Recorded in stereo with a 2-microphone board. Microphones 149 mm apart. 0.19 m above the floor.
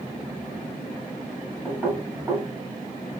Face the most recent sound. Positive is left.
turn(degrees=-15)  # may be behind; listen again after turning